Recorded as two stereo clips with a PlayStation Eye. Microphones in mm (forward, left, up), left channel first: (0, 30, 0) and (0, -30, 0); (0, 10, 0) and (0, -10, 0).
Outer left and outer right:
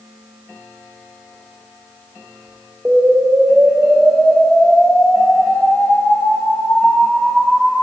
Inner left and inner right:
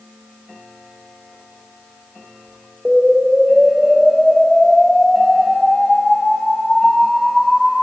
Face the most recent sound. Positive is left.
turn(degrees=-15)  # may be behind; listen again after turning